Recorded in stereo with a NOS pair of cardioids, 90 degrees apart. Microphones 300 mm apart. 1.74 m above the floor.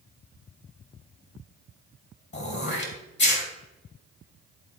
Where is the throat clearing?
35° left, 2.5 m.